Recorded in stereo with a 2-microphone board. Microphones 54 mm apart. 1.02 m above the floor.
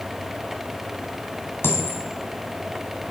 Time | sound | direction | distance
1.6 | a dropped coin | 45° left (ahead or behind) | 1.6 m